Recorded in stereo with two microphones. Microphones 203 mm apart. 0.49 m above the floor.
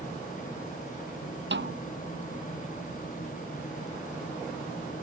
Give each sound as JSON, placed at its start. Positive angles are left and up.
{"t": 1.5, "sound": "a snare drum", "side_deg": -65}